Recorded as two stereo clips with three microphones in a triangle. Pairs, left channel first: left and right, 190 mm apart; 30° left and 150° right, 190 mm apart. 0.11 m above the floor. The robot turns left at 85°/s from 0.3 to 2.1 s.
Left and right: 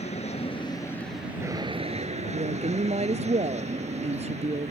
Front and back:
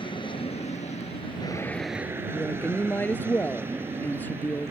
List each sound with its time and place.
0.0 s an aircraft: 75° left; by 4.7 s 80° right
2.3 s a woman speaking: 50° right